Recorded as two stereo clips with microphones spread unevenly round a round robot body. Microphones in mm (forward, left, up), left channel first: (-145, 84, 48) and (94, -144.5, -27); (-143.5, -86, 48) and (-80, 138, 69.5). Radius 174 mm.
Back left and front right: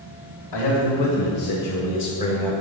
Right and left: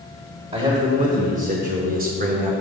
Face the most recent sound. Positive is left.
turn(degrees=30)